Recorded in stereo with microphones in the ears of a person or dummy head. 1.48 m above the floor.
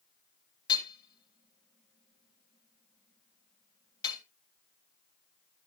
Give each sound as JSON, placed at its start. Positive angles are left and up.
{"t": 0.7, "sound": "hammering", "side_deg": 25, "distance_m": 1.8}